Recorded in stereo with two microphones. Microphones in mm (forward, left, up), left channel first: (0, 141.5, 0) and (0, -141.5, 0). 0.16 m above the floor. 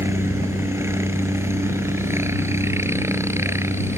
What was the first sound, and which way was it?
A helicopter, 10° right (ahead or behind).